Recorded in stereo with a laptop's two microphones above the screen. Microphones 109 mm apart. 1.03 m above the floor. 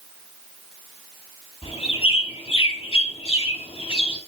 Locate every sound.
1.6 s a bird: 65° left (ahead or behind), 4 m